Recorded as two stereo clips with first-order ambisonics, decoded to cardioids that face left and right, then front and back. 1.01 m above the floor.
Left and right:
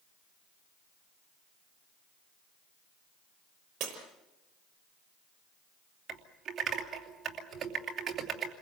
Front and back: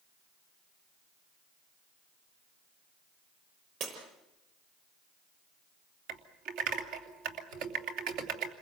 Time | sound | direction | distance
3.8 | breaking glass | 140° right | 6 m
6.1 | typing on a keyboard | 160° right | 3 m